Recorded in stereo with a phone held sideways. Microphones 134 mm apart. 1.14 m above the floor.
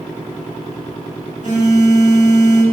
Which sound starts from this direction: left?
A phone buzzing, at 1.4 s.